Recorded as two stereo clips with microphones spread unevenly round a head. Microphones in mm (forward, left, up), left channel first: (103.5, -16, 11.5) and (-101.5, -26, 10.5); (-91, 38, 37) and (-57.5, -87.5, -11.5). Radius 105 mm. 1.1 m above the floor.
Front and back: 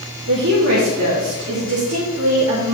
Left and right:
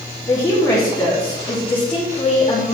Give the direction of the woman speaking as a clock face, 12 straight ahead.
6 o'clock.